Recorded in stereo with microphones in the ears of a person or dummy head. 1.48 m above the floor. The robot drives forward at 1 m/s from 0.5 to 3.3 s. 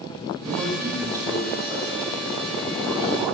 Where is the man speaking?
15° right (ahead or behind), 9 m; by 3.4 s 10° right (ahead or behind), 11.5 m.